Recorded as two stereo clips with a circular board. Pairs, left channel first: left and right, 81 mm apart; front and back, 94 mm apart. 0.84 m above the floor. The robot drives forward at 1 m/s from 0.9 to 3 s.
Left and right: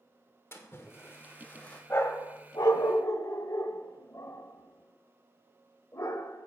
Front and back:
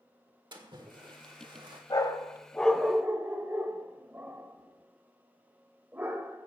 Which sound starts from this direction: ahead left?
A dog barking, at 1.9 s.